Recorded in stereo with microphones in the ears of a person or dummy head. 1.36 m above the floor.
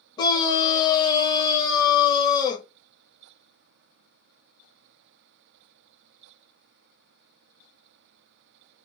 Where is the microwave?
I don't hear a microwave.